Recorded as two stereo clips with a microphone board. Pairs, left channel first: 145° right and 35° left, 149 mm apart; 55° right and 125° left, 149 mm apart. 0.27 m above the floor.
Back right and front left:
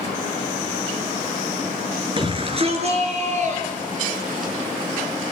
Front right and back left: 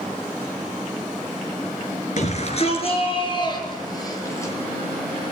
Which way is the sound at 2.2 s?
20° right.